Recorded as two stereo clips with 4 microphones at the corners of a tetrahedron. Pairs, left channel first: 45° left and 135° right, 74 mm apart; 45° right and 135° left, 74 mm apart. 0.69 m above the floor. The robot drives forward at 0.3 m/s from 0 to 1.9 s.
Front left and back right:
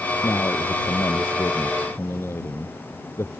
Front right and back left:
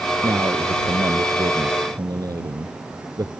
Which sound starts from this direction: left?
A man speaking, at 0.2 s.